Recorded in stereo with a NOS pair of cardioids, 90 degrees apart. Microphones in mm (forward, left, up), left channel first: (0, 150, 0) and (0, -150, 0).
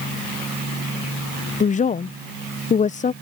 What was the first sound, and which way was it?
A woman speaking, 25° left.